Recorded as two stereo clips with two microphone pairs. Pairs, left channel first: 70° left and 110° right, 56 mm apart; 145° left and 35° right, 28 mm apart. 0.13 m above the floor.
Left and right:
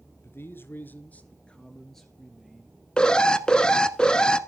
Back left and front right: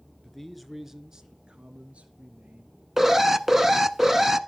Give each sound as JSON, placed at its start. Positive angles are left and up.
{"t": 0.2, "sound": "a man speaking", "azimuth_deg": 70, "distance_m": 1.7}
{"t": 3.0, "sound": "an alarm", "azimuth_deg": 25, "distance_m": 1.0}